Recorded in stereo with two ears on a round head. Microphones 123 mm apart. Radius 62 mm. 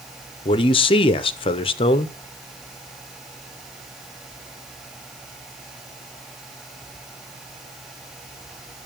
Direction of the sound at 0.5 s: 40° left (ahead or behind).